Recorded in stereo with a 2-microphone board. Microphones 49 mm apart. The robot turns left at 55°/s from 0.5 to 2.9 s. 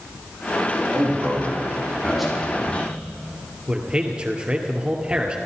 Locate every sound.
0.9 s a man speaking: 105° right, 5.5 m; by 2.9 s 145° left, 5.5 m
3.7 s a man speaking: 20° right (ahead or behind), 2.5 m